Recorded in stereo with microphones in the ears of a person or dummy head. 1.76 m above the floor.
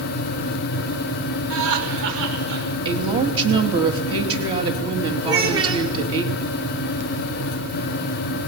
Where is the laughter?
75° right (ahead or behind), 7 m.